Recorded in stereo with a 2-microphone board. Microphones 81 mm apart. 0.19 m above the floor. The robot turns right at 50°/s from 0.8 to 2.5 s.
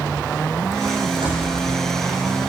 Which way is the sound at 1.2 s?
75° right (ahead or behind).